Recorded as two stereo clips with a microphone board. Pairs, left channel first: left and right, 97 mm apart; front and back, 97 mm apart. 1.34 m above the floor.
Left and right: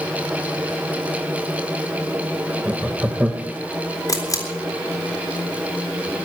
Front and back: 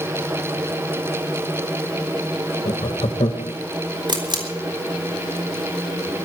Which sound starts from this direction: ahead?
Laughter, at 2.6 s.